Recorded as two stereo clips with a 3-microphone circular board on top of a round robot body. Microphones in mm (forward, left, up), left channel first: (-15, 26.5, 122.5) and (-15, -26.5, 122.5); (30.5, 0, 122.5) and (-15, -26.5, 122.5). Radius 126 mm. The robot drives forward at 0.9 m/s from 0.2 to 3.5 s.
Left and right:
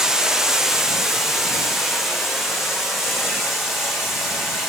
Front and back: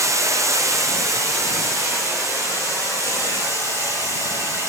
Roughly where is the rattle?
I don't hear a rattle.